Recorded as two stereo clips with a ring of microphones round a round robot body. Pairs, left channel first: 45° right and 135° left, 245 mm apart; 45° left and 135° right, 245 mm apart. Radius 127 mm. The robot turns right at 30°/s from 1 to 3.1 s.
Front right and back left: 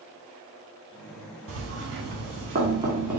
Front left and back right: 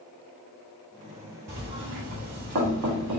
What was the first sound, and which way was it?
Knocking, 170° left.